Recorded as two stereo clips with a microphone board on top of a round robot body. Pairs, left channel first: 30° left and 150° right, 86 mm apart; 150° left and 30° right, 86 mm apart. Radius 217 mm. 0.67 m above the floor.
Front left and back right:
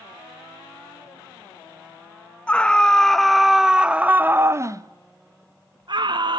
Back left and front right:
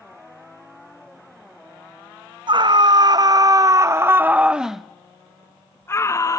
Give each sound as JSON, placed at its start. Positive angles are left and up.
{"t": 2.5, "sound": "a scream", "azimuth_deg": -45, "distance_m": 1.6}